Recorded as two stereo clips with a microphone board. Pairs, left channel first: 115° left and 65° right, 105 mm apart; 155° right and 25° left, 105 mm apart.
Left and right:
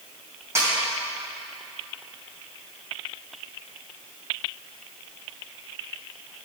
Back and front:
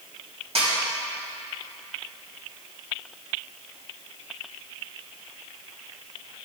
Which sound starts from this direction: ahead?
A snare drum, at 0.6 s.